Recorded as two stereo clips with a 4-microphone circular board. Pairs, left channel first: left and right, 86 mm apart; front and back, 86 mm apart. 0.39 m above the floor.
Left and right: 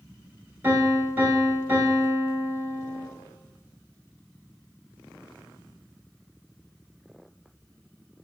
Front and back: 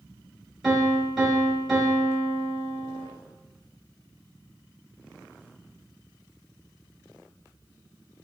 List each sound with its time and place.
0.6 s a piano: 100° right, 0.9 m